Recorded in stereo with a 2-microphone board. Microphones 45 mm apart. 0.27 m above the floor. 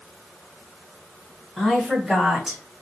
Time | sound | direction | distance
1.6 | a woman speaking | 5° right (ahead or behind) | 1.9 m